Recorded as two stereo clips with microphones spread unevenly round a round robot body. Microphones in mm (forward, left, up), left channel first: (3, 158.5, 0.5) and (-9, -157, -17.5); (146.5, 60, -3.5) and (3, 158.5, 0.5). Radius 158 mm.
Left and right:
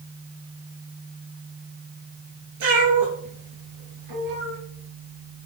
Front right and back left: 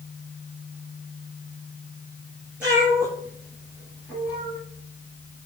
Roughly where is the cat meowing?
Behind right.